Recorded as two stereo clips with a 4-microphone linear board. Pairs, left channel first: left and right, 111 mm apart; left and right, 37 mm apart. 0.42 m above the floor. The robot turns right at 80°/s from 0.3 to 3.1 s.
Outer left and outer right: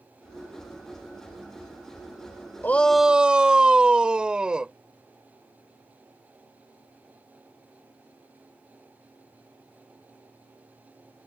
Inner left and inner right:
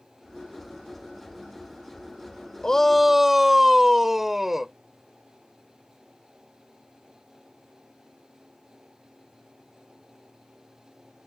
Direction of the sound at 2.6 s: 155° left.